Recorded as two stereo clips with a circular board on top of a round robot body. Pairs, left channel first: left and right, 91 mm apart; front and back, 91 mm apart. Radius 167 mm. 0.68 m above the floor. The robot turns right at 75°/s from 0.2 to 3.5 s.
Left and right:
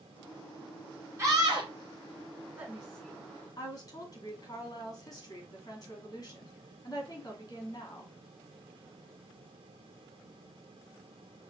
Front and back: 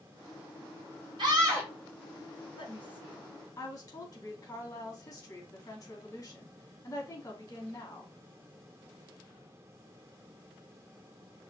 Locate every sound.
1.2 s a scream: 150° right, 2.5 m; by 1.7 s 110° right, 2.5 m
2.6 s a woman speaking: 25° right, 2.5 m; by 8.1 s 45° left, 2.5 m